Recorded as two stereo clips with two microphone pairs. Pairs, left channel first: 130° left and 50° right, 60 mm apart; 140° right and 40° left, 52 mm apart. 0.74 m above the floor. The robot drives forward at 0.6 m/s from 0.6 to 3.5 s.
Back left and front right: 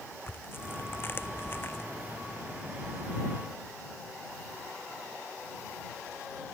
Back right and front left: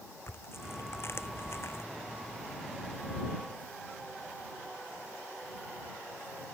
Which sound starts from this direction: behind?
Tearing paper, at 0.3 s.